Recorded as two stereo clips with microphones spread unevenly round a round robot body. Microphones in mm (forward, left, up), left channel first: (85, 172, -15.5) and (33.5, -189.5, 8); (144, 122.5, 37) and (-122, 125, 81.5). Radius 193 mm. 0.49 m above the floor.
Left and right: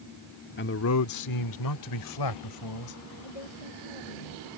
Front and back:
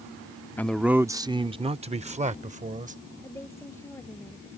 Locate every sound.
0.6 s a man speaking: 60° left; by 3.0 s 115° left
3.2 s a woman speaking: 80° left